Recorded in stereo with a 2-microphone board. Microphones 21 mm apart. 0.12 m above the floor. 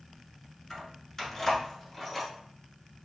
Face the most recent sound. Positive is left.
turn(degrees=10)  # may be behind; listen again after turning